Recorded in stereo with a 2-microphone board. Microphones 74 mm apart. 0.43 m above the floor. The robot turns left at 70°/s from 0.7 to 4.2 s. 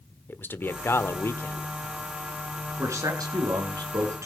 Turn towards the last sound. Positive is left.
turn(degrees=-135)